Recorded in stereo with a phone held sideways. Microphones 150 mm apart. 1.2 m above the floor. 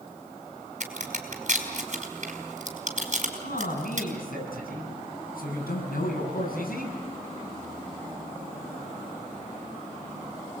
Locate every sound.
0.8 s a crack: 50° right (ahead or behind), 5 m
3.4 s a man speaking: 75° left (ahead or behind), 9 m